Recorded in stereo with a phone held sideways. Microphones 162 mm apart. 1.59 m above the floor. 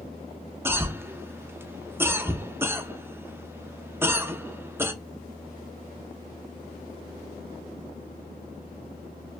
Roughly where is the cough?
Centre.